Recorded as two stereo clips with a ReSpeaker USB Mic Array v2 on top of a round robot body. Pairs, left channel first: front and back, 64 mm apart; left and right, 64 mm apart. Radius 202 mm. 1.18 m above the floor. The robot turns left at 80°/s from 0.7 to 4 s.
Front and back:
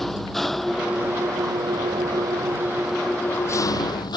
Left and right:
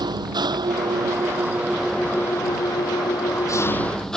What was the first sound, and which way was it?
An engine running, 90° right.